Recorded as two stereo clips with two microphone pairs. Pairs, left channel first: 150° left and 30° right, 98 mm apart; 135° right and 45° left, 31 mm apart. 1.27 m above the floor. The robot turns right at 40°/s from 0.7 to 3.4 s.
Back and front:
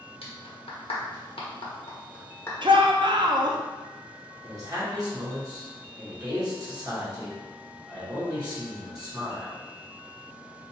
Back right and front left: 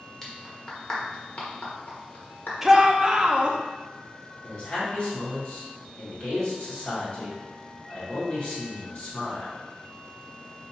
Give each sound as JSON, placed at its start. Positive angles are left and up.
{"t": 0.2, "sound": "a clap", "azimuth_deg": 150, "distance_m": 1.3}
{"t": 2.6, "sound": "a shout", "azimuth_deg": -35, "distance_m": 0.6}
{"t": 4.4, "sound": "a man speaking", "azimuth_deg": -80, "distance_m": 1.9}